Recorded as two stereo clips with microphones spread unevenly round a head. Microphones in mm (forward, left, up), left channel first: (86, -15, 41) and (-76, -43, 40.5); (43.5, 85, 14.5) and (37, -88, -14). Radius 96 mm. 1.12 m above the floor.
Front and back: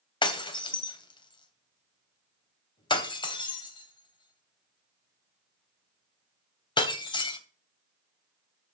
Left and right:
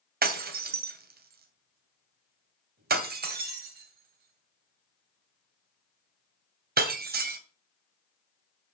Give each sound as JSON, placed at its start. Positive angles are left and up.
{"t": 0.2, "sound": "breaking glass", "azimuth_deg": -55, "distance_m": 2.5}